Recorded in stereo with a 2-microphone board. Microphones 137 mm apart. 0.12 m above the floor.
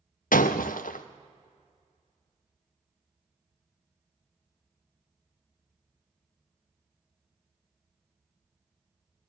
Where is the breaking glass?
85° left, 0.9 m.